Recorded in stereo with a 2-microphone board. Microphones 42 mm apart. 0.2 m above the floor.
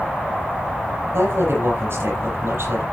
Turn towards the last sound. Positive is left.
turn(degrees=-60)  # may be behind; listen again after turning